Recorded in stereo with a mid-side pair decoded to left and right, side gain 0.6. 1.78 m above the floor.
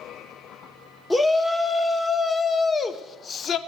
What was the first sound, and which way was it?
A shout, 15° left.